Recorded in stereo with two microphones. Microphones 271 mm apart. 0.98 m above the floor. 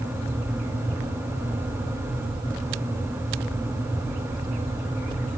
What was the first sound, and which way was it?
Only background noise.